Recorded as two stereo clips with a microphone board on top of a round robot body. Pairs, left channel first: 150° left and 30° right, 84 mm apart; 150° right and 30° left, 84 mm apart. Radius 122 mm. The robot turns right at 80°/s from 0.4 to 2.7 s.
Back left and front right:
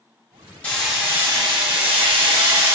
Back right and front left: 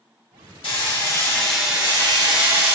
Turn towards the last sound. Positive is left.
turn(degrees=30)